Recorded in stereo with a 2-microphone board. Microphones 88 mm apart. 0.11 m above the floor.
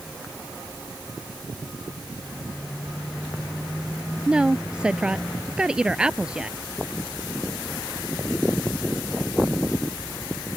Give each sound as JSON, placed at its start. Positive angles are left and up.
{"t": 4.3, "sound": "a woman speaking", "side_deg": -10}